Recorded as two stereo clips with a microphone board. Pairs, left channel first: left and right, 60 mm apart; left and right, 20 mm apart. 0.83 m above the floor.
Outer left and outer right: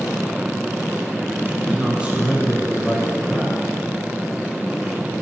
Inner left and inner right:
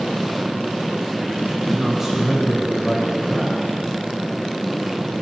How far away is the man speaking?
About 4.5 m.